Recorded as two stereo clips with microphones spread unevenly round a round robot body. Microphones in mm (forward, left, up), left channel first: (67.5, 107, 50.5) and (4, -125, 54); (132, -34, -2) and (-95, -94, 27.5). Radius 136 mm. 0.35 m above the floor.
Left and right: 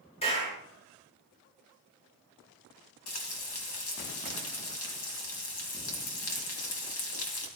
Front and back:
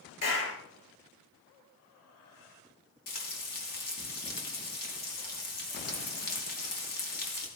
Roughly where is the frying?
Ahead left.